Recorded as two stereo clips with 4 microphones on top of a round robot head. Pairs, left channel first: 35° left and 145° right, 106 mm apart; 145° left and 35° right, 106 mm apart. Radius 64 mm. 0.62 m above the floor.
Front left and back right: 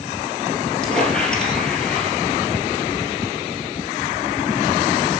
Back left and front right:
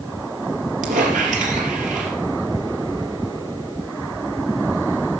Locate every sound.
0.8 s a squeak: 45° right, 3.5 m